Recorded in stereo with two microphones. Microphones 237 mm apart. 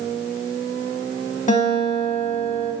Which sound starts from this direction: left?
A guitar, at 1.5 s.